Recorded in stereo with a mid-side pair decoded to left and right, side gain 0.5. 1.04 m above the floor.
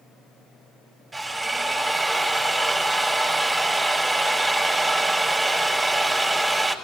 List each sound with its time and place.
1.1 s a drill: 20° right, 5.5 m